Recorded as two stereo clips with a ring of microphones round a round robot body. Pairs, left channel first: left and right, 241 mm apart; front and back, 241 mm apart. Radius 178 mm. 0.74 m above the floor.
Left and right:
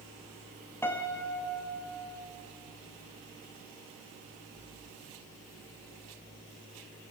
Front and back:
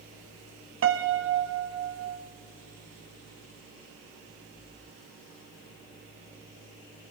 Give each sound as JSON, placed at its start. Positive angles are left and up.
{"t": 0.8, "sound": "a piano", "azimuth_deg": 170, "distance_m": 1.1}